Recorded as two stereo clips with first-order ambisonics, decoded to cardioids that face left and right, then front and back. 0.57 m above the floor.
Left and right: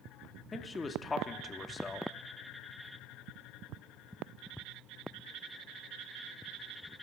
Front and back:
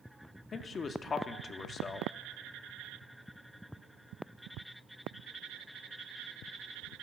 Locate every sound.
0.5 s a man speaking: 35° left, 0.6 m